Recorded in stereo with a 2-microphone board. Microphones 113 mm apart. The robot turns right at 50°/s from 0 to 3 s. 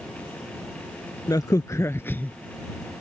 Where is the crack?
105° left; by 2.3 s 155° left.